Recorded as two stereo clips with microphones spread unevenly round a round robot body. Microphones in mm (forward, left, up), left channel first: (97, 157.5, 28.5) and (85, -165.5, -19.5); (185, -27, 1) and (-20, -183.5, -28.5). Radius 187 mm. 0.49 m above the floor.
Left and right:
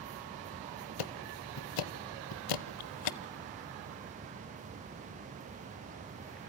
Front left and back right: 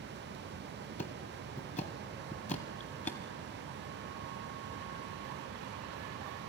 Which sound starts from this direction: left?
Ticking, at 1.0 s.